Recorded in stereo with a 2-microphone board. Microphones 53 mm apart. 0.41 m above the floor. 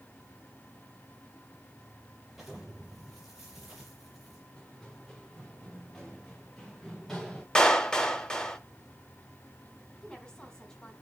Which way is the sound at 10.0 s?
15° left (ahead or behind).